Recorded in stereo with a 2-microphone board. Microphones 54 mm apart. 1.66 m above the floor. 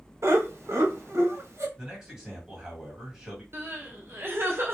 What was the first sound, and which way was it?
Laughter, 60° right (ahead or behind).